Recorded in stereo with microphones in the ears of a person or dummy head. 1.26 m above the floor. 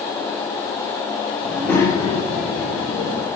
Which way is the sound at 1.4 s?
5° right (ahead or behind).